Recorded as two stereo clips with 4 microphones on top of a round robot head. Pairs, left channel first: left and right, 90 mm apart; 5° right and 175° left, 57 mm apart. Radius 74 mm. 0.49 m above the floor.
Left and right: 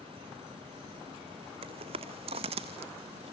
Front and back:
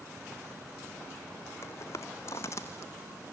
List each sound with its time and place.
1.6 s footsteps: 60° right, 2 m